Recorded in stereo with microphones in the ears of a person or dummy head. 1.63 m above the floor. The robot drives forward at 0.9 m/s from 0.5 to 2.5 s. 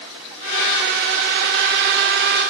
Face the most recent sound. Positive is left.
No sound to turn to.